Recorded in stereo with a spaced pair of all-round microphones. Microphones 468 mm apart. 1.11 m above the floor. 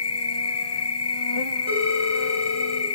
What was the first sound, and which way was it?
An insect, 60° left (ahead or behind).